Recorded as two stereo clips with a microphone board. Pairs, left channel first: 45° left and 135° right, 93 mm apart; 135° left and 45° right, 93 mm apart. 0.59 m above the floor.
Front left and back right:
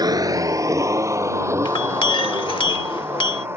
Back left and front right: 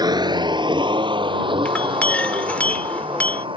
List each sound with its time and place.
0.0 s a vehicle: 90° right; by 3.6 s 70° right
1.6 s a clink: 60° left